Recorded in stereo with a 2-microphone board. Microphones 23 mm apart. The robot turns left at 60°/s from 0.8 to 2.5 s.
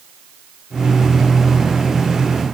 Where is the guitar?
I don't hear a guitar.